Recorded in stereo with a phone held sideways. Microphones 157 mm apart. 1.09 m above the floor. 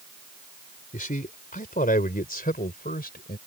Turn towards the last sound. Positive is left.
turn(degrees=75)  # may be behind; listen again after turning